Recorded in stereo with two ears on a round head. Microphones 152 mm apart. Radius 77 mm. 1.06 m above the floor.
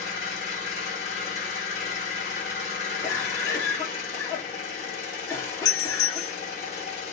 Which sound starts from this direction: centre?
A cough, at 3.0 s.